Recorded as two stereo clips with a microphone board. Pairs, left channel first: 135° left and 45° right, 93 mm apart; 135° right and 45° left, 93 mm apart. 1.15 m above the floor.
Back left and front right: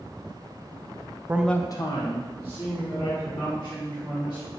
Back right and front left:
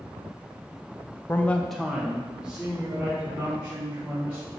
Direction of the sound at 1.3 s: 90° right.